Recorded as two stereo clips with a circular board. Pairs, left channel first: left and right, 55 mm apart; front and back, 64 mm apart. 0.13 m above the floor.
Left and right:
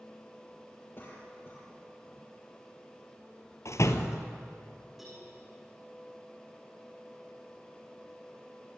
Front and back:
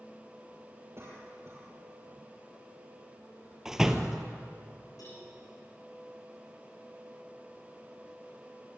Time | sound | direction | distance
1.0 | a cough | 135° left | 4.5 m
3.6 | a door slam | 100° left | 1.7 m
5.0 | a cowbell | straight ahead | 9 m